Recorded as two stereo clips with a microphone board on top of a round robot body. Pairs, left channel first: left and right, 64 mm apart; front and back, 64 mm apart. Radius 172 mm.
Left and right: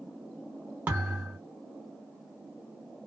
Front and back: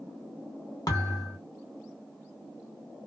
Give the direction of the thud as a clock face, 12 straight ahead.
1 o'clock.